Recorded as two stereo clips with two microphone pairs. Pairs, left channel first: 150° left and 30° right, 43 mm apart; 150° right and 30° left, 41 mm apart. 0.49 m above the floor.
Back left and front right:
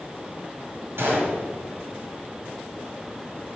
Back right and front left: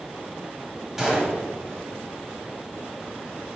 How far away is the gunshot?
About 2.0 m.